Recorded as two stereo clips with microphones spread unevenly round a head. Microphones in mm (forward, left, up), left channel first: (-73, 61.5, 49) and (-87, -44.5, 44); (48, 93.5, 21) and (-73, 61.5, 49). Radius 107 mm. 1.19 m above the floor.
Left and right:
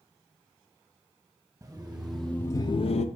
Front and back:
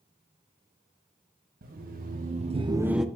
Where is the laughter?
170° right, 1.0 m; by 3.0 s 105° left, 0.5 m.